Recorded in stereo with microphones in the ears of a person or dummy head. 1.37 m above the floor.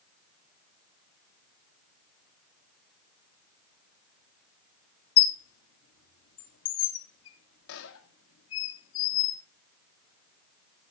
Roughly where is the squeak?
Left.